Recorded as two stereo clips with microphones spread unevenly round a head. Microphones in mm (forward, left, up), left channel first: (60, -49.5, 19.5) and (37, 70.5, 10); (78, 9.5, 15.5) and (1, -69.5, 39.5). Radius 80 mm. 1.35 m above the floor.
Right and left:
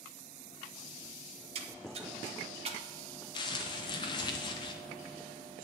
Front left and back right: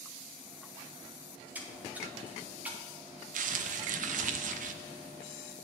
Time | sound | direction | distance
1.6 | a splash | 145° left | 0.7 m
3.3 | crumpling | 140° right | 0.5 m